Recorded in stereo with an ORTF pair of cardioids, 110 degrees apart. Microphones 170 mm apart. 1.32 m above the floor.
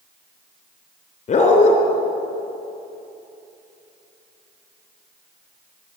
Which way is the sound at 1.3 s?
45° left.